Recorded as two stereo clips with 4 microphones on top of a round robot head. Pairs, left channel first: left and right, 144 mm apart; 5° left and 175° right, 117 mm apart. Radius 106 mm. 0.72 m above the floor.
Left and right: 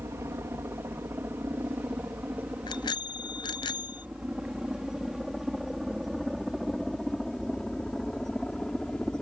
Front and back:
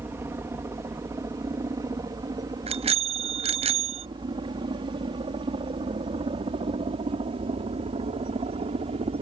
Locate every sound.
0.0 s a helicopter: 135° right; by 9.2 s 175° left
2.7 s a bicycle bell: 155° left